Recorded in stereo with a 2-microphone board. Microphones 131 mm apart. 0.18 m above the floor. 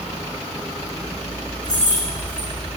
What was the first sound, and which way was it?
Keys jangling, 80° left.